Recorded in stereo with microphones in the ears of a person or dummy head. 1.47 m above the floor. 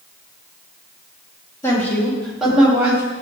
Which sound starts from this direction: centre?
A woman speaking, at 1.6 s.